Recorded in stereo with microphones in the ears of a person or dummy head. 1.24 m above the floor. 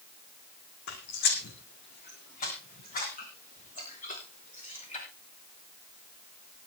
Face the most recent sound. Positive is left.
turn(degrees=40)  # may be behind; listen again after turning